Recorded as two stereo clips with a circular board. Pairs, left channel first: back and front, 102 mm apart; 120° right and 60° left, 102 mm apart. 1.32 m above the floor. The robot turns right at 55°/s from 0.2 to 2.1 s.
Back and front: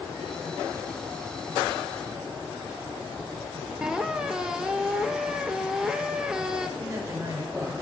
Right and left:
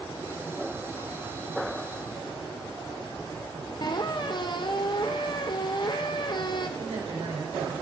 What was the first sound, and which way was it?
A squeak, 85° right.